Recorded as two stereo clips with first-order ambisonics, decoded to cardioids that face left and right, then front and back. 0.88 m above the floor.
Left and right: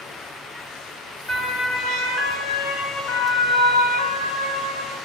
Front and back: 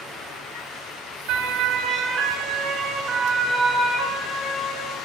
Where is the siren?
160° left, 3 m; by 5.0 s 95° left, 5.5 m.